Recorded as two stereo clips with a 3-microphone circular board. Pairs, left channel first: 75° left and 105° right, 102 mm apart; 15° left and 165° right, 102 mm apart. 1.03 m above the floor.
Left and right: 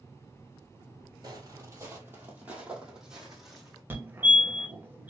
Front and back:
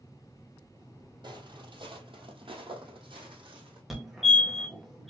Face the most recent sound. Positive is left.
turn(degrees=-80)